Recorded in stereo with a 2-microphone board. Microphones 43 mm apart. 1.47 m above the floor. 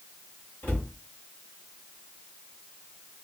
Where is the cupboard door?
55° left (ahead or behind), 2 m.